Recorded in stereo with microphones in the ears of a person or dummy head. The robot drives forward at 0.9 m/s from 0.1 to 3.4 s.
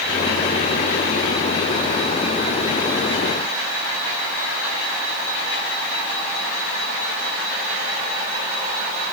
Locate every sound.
Only background noise.